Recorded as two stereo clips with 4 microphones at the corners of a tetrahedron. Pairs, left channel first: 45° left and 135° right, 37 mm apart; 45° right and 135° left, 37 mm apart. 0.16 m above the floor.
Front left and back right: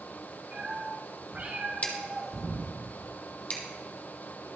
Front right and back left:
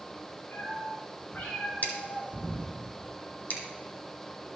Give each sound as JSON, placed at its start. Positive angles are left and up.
{"t": 0.5, "sound": "a cat meowing", "azimuth_deg": -85, "distance_m": 6.0}
{"t": 1.8, "sound": "scissors", "azimuth_deg": -5, "distance_m": 1.9}